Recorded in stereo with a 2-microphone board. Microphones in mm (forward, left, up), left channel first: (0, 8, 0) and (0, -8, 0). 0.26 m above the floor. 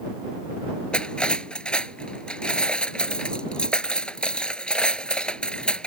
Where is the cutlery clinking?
65° left (ahead or behind).